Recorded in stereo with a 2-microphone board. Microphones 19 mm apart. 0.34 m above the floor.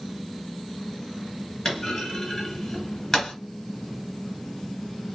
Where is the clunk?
20° left (ahead or behind), 3 m.